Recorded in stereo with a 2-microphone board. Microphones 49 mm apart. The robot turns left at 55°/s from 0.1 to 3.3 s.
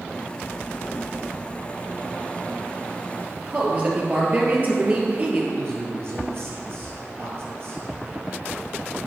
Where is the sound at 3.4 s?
30° right (ahead or behind), 2 m.